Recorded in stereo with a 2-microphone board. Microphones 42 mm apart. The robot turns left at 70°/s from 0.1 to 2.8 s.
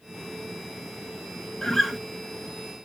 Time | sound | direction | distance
1.6 | a guitar | 10° left (ahead or behind) | 0.5 m